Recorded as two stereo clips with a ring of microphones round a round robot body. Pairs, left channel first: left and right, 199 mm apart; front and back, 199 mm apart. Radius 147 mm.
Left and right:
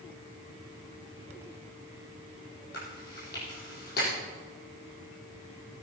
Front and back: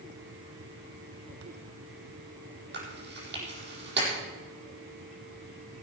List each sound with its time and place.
2.7 s chewing: 150° left, 4.5 m